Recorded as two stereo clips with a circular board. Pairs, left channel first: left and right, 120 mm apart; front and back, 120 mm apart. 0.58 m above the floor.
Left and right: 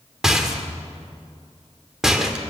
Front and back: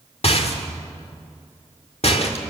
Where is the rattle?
5° right, 1.9 m.